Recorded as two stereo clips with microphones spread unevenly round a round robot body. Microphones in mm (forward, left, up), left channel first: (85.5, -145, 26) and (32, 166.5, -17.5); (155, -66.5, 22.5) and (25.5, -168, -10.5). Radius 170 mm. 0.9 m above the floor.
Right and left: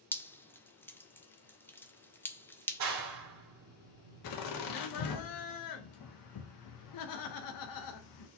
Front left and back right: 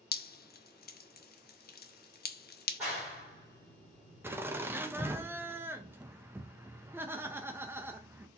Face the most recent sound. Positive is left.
turn(degrees=-75)